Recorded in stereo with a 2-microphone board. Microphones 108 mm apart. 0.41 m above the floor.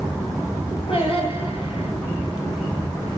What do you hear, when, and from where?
0.9 s singing: 60° left (ahead or behind), 9 m